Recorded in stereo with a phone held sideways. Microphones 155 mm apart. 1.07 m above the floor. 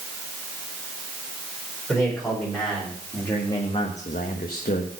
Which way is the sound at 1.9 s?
Centre (ahead or behind).